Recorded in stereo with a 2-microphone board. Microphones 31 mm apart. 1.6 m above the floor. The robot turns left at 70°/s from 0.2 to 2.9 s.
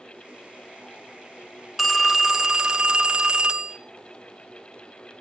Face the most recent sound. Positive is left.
turn(degrees=-30)  # may be behind; listen again after turning